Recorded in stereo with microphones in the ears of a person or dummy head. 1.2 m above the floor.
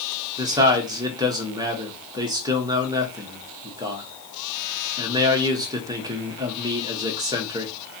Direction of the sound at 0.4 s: 20° right (ahead or behind).